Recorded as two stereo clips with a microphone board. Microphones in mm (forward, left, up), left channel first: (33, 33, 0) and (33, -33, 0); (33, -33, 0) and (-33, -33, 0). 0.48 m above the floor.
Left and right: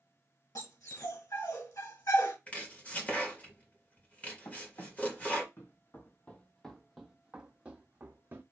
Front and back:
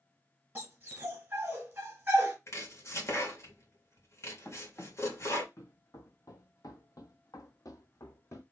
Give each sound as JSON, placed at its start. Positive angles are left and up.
{"t": 0.6, "sound": "a dog barking", "azimuth_deg": 120, "distance_m": 2.0}
{"t": 2.5, "sound": "chopping", "azimuth_deg": 25, "distance_m": 1.7}
{"t": 4.5, "sound": "running footsteps", "azimuth_deg": 55, "distance_m": 1.6}